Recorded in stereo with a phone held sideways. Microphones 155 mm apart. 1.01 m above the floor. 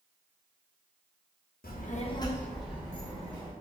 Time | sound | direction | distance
1.6 | a child speaking | 75° left (ahead or behind) | 0.7 m